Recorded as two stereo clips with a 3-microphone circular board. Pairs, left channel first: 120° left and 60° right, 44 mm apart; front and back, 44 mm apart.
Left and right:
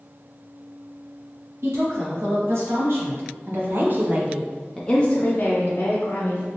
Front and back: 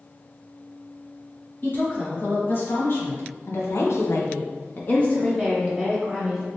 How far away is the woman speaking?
About 1.8 m.